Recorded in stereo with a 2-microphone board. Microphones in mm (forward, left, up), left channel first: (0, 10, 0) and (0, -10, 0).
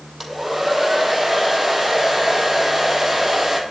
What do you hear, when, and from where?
0.2 s a hair dryer: 5° right (ahead or behind), 2.5 m